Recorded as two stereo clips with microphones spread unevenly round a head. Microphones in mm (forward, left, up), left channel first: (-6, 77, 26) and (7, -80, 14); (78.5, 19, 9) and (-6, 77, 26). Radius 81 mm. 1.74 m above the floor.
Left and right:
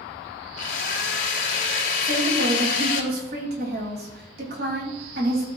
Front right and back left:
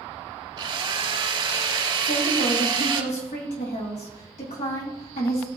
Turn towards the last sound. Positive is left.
turn(degrees=-55)